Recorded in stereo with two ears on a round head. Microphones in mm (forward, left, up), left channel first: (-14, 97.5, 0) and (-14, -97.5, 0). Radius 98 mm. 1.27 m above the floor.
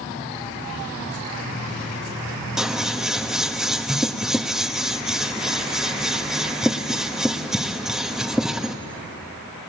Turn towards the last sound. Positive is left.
turn(degrees=-5)  # may be behind; listen again after turning